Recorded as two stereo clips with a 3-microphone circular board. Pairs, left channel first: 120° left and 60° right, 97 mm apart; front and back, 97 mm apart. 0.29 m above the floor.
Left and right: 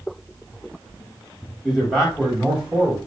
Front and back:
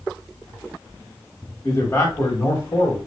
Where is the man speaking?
35° left, 1.9 m; by 3.0 s straight ahead, 1.8 m.